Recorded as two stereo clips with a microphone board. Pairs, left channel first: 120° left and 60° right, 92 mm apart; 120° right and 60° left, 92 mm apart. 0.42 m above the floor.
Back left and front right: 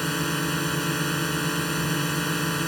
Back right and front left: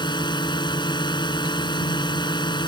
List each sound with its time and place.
0.0 s a drone: 155° right